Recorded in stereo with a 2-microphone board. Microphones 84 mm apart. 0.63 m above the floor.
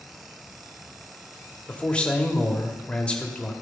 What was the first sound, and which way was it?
A man speaking, 15° left (ahead or behind).